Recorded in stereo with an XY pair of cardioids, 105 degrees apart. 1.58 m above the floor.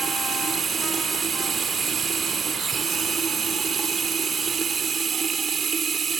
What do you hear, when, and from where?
0.0 s running water: 35° right